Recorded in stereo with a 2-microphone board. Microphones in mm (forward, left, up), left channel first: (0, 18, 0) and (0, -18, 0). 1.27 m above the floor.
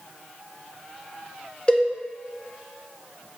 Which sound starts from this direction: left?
A cowbell, at 1.7 s.